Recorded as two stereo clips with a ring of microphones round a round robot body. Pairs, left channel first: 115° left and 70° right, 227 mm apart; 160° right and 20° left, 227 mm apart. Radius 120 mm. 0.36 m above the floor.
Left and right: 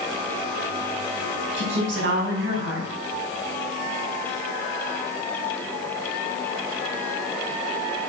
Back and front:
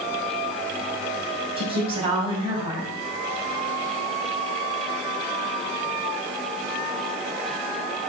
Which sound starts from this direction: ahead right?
A woman speaking, at 1.6 s.